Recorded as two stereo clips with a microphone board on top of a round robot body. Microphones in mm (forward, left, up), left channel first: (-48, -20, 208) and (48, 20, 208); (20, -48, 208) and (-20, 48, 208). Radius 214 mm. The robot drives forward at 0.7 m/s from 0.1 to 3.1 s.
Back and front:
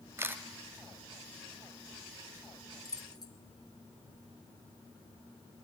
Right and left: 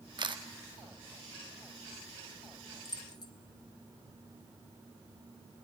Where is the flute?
No flute in this recording.